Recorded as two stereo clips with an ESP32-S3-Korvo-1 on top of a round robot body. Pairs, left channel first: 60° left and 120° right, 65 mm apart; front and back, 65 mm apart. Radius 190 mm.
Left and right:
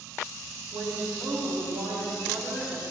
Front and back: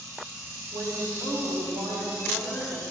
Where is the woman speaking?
170° right, 2.5 m.